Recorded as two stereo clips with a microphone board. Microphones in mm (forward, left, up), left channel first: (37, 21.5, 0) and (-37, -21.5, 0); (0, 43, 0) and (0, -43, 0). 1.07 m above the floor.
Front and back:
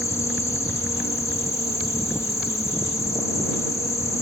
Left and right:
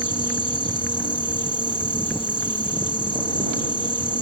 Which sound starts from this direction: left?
An insect, at 0.0 s.